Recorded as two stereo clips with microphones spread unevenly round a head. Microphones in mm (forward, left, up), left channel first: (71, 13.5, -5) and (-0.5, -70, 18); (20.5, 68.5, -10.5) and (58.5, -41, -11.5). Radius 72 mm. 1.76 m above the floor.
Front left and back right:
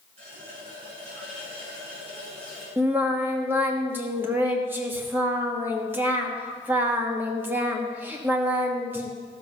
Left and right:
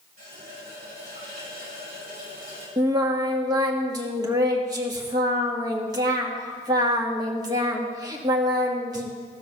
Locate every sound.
0.2 s a running tap: 105° right, 6 m
2.8 s singing: 100° right, 1.3 m